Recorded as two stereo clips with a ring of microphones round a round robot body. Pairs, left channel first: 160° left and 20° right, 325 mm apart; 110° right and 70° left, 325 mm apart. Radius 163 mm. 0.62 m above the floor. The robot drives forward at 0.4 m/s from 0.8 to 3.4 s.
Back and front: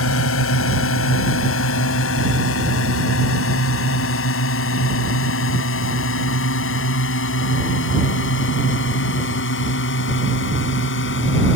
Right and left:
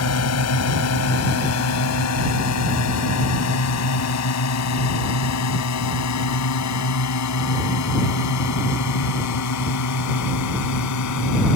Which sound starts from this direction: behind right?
A drone, at 0.0 s.